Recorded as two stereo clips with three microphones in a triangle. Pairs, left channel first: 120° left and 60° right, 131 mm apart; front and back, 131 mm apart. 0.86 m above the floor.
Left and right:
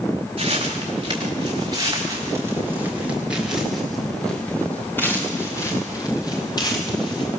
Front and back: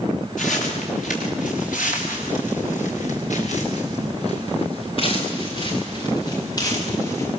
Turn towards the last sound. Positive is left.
turn(degrees=65)